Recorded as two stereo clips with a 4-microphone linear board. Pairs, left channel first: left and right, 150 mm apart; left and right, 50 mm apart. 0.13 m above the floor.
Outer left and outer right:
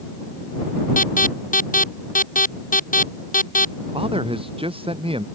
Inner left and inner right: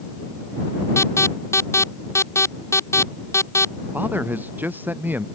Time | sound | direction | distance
1.0 | an alarm | 65° left (ahead or behind) | ?
3.9 | a man speaking | 40° right (ahead or behind) | ?